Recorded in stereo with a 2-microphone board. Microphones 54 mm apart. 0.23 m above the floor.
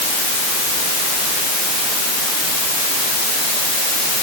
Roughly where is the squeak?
I don't hear a squeak.